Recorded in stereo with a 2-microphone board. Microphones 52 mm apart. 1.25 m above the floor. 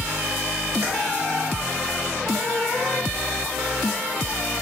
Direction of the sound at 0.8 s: 60° right (ahead or behind).